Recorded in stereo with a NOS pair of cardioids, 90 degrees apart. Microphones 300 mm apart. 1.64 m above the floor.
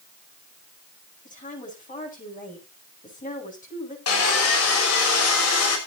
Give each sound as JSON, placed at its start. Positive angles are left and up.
{"t": 1.2, "sound": "a woman speaking", "azimuth_deg": 25, "distance_m": 9.5}
{"t": 4.1, "sound": "sawing", "azimuth_deg": 55, "distance_m": 6.0}